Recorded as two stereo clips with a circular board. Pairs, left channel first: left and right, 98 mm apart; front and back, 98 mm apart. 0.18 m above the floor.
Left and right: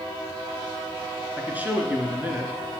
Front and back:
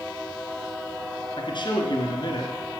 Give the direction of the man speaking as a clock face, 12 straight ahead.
1 o'clock.